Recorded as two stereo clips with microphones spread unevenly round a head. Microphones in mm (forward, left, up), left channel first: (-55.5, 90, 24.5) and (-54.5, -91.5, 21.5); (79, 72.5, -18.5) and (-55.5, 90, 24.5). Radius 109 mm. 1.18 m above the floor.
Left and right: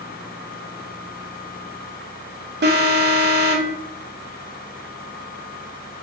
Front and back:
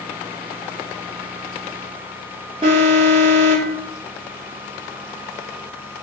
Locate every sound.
2.6 s an alarm: 115° right, 4 m